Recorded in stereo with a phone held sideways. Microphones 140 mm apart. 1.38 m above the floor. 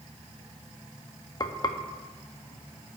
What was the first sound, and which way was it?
Frying, 30° left (ahead or behind).